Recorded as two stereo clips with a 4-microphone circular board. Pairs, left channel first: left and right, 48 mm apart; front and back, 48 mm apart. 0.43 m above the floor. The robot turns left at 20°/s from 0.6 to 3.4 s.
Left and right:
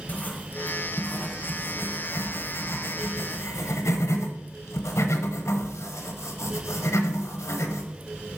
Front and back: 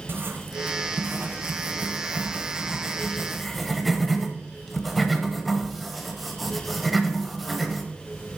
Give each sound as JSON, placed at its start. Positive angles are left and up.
{"t": 0.1, "sound": "writing", "azimuth_deg": 145, "distance_m": 0.9}